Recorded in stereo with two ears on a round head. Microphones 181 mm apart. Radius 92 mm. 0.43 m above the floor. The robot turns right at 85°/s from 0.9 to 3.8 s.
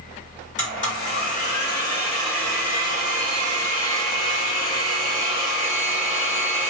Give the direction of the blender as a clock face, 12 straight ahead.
10 o'clock.